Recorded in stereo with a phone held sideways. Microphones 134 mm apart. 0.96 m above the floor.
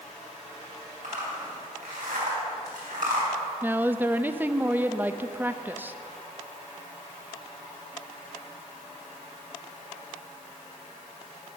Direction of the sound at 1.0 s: 85° right.